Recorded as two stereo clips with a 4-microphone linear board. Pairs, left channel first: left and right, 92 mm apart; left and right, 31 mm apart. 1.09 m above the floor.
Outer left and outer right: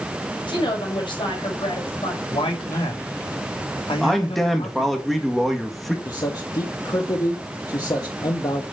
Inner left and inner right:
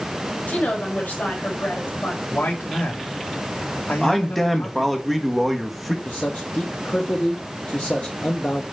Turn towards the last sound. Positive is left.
turn(degrees=45)  # may be behind; listen again after turning